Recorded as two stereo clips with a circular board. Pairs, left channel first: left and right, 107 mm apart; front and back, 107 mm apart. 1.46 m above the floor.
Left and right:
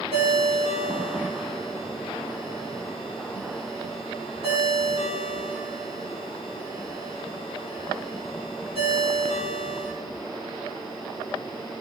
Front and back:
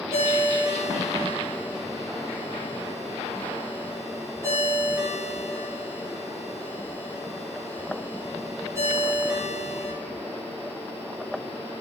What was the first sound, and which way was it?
A ringtone, 115° right.